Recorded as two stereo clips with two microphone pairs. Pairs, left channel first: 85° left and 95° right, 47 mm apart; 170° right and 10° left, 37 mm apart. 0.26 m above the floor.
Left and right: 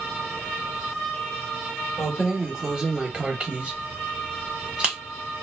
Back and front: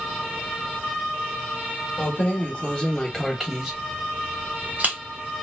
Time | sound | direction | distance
2.0 | keys jangling | 175° right | 1.0 m